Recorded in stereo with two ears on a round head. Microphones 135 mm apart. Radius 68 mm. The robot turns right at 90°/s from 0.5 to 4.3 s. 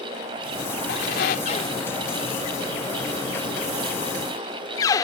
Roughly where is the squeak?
Left.